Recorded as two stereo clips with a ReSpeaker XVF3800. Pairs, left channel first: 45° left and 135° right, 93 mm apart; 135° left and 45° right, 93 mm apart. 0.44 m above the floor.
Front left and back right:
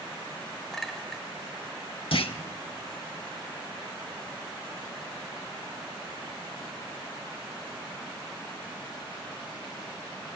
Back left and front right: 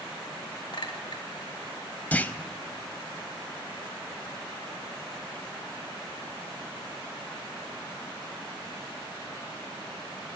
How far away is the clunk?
About 0.5 m.